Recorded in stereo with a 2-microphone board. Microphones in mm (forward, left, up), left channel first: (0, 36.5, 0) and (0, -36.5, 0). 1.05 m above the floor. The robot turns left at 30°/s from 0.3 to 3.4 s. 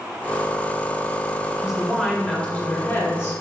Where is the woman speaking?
170° right, 2.5 m; by 3.4 s 135° left, 2.5 m.